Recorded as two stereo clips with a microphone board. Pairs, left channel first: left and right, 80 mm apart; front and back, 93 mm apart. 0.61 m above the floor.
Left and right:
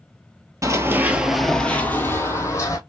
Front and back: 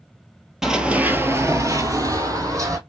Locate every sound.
0.6 s running footsteps: 95° right, 0.7 m; by 2.8 s 130° left, 1.3 m